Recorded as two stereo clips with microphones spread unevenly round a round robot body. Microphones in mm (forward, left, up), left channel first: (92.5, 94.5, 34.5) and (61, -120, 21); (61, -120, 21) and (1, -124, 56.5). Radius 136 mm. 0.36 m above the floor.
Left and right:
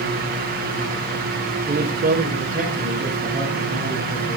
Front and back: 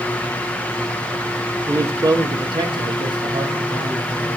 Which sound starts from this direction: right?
A man speaking, at 1.7 s.